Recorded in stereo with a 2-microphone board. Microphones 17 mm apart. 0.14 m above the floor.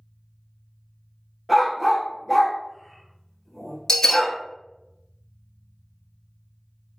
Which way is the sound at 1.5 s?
10° left (ahead or behind).